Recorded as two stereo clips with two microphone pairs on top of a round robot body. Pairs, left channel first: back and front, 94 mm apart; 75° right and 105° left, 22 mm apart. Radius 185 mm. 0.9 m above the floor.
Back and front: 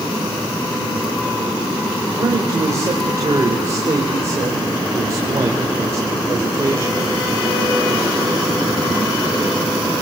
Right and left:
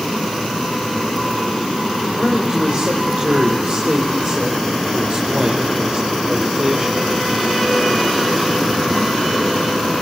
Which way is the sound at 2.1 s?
60° left.